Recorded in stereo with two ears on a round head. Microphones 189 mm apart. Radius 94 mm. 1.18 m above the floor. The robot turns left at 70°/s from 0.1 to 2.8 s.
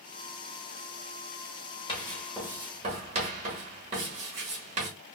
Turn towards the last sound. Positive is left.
turn(degrees=-35)  # may be behind; listen again after turning